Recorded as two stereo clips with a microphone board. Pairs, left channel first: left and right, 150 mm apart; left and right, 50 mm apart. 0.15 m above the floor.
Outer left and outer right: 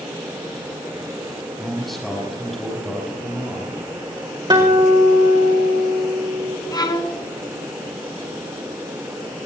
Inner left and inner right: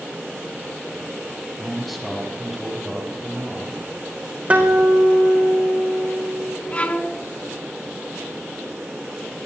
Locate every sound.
1.6 s a man speaking: centre (ahead or behind), 6 m
4.5 s a guitar: 30° right (ahead or behind), 3.5 m
6.7 s a violin: 25° left (ahead or behind), 1.1 m